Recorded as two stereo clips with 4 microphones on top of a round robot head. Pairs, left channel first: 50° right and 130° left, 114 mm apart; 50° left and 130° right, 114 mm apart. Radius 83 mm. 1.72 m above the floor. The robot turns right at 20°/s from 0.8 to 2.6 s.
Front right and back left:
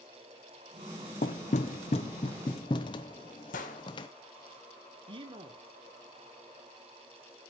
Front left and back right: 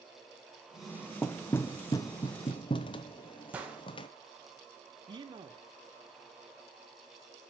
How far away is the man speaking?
About 1.3 m.